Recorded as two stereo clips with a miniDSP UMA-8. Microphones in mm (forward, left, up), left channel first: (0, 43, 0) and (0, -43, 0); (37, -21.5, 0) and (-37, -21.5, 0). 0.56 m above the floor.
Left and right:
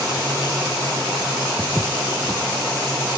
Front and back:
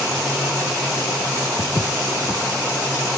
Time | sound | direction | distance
1.6 | footsteps | 5° right | 0.9 m